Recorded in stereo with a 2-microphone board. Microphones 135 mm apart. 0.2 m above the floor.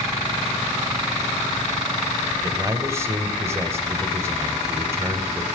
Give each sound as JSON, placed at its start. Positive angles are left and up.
{"t": 2.4, "sound": "a man speaking", "side_deg": -20, "distance_m": 1.1}